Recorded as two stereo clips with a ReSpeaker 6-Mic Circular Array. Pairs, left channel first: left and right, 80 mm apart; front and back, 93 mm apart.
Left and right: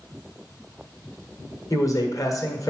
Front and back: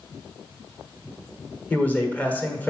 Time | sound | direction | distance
1.7 | a man speaking | 70° left | 1.4 m